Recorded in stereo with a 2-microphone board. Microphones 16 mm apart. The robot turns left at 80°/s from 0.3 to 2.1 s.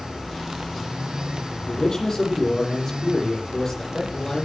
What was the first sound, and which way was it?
A man speaking, 65° left.